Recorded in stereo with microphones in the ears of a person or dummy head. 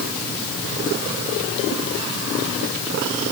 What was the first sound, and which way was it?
Only background noise.